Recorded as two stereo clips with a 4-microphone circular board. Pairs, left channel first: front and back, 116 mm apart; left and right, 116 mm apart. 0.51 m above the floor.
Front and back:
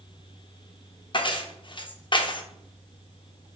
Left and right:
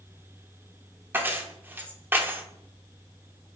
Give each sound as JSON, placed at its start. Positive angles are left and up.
{"t": 1.1, "sound": "keys jangling", "azimuth_deg": -25, "distance_m": 0.6}